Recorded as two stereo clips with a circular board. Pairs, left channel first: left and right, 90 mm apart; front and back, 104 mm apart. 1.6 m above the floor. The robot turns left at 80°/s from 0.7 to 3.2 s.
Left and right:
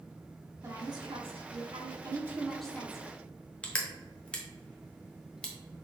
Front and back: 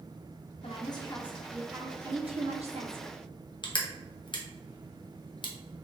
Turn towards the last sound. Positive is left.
turn(degrees=15)